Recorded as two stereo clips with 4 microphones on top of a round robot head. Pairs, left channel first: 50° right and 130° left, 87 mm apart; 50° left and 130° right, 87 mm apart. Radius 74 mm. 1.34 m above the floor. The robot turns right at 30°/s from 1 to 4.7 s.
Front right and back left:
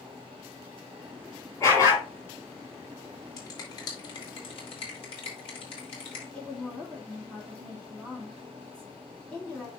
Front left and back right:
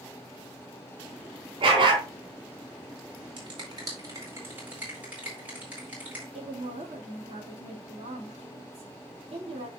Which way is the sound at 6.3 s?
125° right.